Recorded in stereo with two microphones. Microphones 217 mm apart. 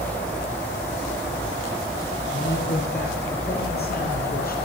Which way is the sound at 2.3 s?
55° left (ahead or behind).